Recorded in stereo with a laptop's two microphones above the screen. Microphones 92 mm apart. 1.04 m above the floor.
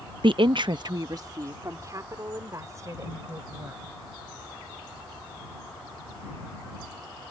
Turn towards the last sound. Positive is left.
turn(degrees=-35)  # may be behind; listen again after turning